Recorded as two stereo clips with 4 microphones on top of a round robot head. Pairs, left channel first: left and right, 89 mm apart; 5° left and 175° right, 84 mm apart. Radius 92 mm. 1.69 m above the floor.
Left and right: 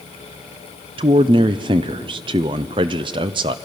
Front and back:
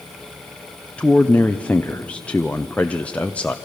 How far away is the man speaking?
About 0.5 m.